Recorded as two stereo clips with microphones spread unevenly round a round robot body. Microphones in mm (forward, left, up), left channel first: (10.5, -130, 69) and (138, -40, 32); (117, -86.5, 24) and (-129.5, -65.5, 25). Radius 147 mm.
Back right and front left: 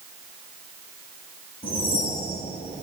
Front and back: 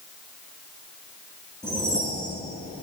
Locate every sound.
1.6 s a whoosh: 90° right, 5 m